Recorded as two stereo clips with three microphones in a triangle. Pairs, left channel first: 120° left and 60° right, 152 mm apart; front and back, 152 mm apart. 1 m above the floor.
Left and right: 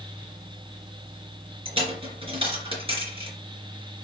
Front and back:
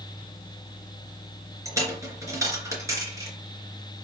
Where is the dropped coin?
110° right, 3 m.